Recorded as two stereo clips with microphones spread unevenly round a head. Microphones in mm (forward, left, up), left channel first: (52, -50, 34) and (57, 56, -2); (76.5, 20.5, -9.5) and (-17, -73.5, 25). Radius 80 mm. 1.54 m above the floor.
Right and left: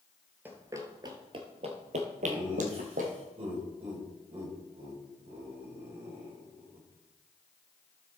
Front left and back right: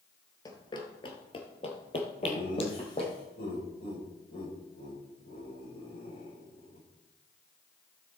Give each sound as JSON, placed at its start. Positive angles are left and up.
{"t": 0.5, "sound": "running footsteps", "azimuth_deg": -10, "distance_m": 1.6}
{"t": 2.2, "sound": "laughter", "azimuth_deg": 55, "distance_m": 6.0}